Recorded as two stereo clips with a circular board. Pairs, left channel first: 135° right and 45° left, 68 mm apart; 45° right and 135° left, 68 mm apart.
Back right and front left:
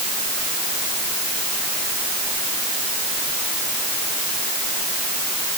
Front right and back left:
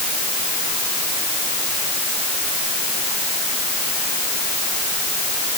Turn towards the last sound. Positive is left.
No sound to turn to.